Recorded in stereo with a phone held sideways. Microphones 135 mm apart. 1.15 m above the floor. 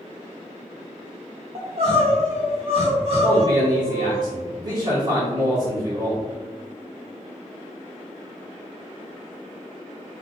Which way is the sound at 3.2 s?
35° right (ahead or behind).